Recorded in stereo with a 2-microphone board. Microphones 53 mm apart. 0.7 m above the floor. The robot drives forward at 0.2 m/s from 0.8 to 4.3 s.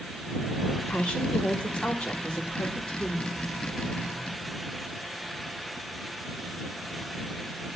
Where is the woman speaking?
20° left (ahead or behind), 2 m; by 3.3 s 15° left (ahead or behind), 2.5 m.